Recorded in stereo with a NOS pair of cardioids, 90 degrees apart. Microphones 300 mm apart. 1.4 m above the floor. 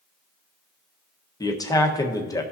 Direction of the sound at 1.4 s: 10° left.